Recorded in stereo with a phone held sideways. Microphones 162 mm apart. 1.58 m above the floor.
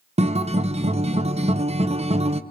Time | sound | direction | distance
0.2 | a guitar | 40° right (ahead or behind) | 0.6 m